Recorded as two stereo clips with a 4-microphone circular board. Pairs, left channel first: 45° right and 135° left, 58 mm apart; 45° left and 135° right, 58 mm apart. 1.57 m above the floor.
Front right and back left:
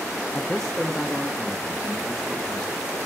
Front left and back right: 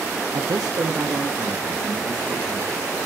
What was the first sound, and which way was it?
A man speaking, 115° right.